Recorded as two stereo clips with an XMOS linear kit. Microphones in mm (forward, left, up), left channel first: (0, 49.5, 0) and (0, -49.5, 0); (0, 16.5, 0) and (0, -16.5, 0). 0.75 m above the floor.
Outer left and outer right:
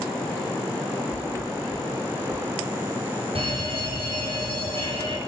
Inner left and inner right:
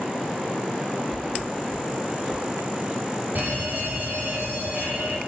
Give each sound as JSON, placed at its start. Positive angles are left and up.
{"t": 1.1, "sound": "a thud", "side_deg": -40, "distance_m": 10.0}
{"t": 3.4, "sound": "a fire alarm", "side_deg": -65, "distance_m": 6.5}